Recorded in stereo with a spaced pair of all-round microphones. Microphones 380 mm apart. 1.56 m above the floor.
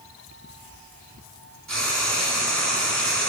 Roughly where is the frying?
Right.